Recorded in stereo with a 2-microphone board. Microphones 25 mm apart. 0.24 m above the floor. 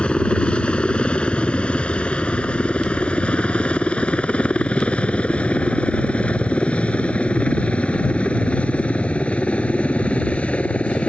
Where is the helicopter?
40° left (ahead or behind); by 11.1 s 55° left (ahead or behind).